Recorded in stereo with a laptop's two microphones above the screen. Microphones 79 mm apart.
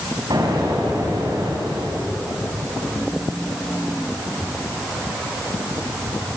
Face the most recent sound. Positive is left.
turn(degrees=-75)  # may be behind; listen again after turning